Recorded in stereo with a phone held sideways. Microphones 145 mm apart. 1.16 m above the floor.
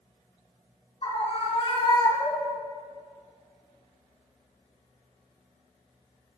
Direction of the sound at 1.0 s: 50° left (ahead or behind).